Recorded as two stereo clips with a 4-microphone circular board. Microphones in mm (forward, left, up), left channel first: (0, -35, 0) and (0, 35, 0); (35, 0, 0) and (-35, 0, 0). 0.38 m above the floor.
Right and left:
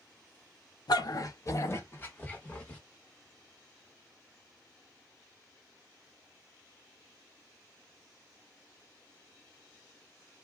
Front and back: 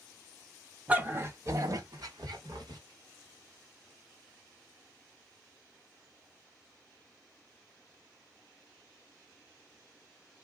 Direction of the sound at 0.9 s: 110° right.